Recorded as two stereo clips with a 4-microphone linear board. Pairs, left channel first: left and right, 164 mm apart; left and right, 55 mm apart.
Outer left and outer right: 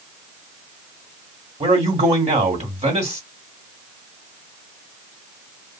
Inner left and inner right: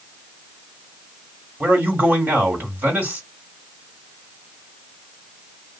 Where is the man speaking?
40° right (ahead or behind), 1.6 m.